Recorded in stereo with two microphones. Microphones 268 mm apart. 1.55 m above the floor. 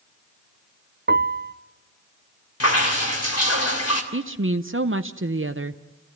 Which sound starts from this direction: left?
Dripping, at 2.6 s.